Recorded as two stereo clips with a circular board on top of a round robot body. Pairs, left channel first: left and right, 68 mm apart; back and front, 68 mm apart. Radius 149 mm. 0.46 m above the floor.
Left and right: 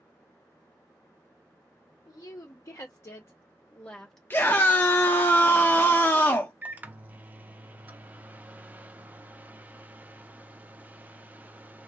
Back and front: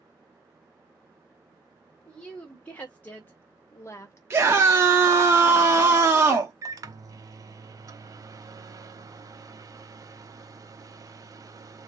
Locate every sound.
2.0 s a woman speaking: 105° left, 1.8 m; by 4.2 s 175° left, 1.2 m
4.3 s a scream: 40° left, 1.0 m
6.6 s a microwave: 25° right, 0.8 m